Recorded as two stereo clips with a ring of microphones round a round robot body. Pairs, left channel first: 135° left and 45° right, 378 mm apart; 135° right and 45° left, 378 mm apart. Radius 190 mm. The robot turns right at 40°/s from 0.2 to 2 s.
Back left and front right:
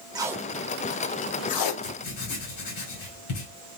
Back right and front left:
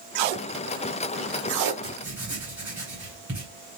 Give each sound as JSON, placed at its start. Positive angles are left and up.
{"t": 0.1, "sound": "tape being pulled", "azimuth_deg": 35, "distance_m": 0.6}
{"t": 1.8, "sound": "writing", "azimuth_deg": 125, "distance_m": 1.9}